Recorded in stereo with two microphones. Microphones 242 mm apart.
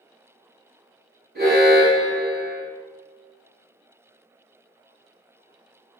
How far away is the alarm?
About 1.8 m.